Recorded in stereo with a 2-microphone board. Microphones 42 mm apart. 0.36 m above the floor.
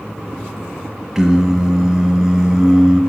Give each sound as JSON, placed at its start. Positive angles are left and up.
{"t": 1.1, "sound": "singing", "side_deg": -10, "distance_m": 0.8}